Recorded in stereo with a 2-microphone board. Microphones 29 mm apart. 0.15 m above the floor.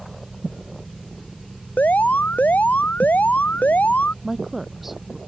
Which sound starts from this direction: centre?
A woman speaking, at 4.2 s.